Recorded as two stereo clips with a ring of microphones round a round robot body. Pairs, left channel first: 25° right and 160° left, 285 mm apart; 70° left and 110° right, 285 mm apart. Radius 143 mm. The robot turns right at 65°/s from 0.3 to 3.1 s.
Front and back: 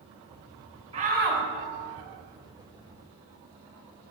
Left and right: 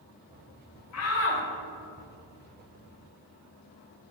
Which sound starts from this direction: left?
A shout, at 0.9 s.